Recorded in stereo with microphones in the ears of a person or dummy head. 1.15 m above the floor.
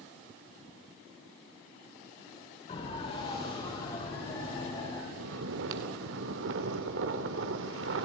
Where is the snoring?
75° right (ahead or behind), 2.0 m.